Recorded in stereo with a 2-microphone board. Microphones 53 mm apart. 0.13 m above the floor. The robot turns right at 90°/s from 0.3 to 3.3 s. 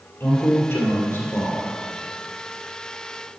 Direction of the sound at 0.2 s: 30° left.